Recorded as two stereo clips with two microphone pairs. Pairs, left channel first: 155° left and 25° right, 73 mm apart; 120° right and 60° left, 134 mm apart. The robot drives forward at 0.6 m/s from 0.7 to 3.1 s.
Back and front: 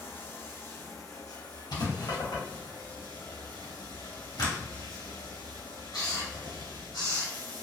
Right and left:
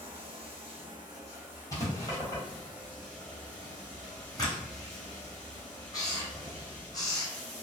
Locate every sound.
0.0 s running water: 105° left, 0.8 m; by 7.6 s 155° left, 1.8 m
1.7 s writing: 170° left, 1.1 m; by 7.3 s 175° left, 1.9 m